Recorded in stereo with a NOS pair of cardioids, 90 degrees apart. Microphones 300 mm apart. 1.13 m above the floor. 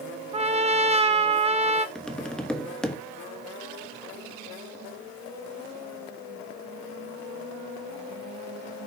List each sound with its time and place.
0.3 s a trumpet: 20° right, 0.9 m
1.9 s tapping: 5° left, 1.1 m